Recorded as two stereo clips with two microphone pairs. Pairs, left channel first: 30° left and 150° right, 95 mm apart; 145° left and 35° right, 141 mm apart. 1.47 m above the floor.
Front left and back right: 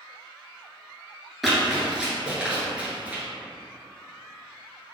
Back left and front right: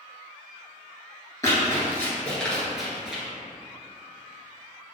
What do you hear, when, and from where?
1.4 s running footsteps: 120° left, 1.5 m; by 3.2 s 100° right, 1.5 m